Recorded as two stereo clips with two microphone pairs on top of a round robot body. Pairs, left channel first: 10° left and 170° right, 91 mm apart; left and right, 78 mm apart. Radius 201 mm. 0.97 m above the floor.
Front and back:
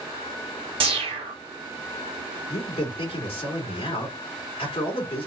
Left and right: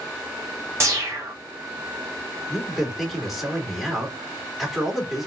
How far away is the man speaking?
About 2 m.